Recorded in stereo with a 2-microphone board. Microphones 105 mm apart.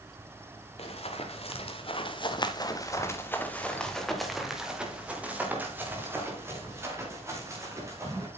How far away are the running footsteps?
About 2.5 m.